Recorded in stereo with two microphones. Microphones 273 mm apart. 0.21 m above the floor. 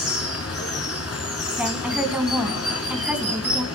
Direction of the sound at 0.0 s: 60° left (ahead or behind).